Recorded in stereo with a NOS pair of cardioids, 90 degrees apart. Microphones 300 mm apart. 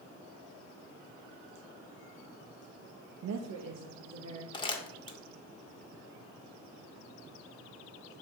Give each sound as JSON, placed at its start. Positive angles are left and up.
{"t": 3.2, "sound": "a woman speaking", "azimuth_deg": -60, "distance_m": 0.7}
{"t": 4.5, "sound": "crumpling", "azimuth_deg": 15, "distance_m": 1.5}